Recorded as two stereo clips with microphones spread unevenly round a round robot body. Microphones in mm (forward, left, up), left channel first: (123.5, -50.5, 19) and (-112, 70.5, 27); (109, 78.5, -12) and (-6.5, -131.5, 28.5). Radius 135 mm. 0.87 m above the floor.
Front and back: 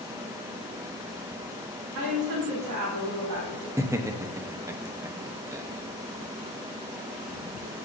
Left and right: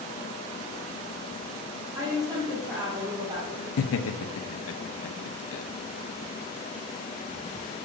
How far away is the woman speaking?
About 2 m.